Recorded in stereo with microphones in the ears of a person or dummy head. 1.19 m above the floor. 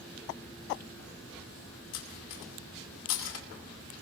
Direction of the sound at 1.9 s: 80° left.